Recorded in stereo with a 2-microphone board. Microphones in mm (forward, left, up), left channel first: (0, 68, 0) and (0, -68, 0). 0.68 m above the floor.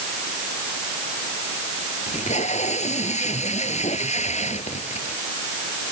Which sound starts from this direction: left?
Tape being pulled, at 2.1 s.